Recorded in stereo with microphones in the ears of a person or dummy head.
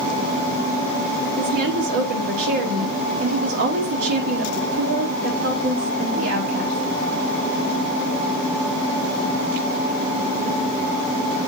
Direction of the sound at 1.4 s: 75° right (ahead or behind).